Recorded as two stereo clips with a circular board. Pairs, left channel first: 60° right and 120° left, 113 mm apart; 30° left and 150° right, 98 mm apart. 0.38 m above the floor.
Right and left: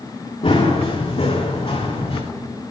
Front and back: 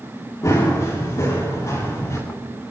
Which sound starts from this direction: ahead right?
Running footsteps, at 0.4 s.